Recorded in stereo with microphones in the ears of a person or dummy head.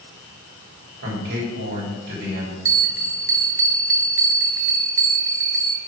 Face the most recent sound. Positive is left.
turn(degrees=-15)  # may be behind; listen again after turning